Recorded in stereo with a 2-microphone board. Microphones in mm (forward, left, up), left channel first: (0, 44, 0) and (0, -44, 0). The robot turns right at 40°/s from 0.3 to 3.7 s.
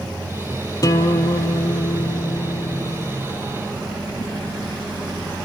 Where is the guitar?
50° left, 0.6 m; by 3.2 s 145° left, 0.6 m.